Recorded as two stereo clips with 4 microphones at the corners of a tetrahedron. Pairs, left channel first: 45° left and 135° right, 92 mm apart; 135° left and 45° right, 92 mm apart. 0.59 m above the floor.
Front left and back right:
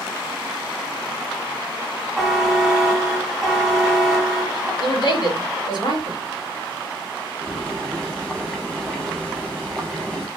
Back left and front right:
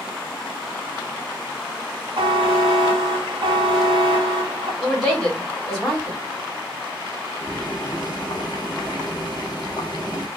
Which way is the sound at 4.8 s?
45° left.